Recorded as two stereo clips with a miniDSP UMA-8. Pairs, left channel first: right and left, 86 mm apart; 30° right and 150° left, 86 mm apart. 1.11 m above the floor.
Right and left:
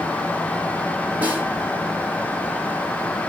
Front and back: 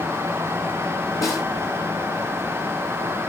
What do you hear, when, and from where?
1.2 s a snare drum: 20° left, 3 m